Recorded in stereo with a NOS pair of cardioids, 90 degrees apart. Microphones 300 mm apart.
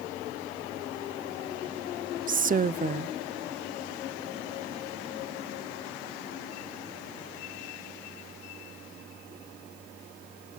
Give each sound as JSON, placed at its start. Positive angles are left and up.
{"t": 2.3, "sound": "a woman speaking", "azimuth_deg": -30, "distance_m": 0.7}